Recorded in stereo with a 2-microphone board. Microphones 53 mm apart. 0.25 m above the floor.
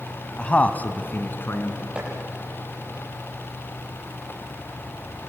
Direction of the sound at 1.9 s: 20° right (ahead or behind).